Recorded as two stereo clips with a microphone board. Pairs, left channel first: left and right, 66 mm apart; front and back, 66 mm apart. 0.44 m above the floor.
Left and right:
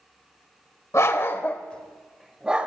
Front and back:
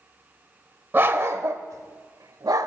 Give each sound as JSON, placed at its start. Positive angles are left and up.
{"t": 0.9, "sound": "a dog barking", "azimuth_deg": 130, "distance_m": 0.8}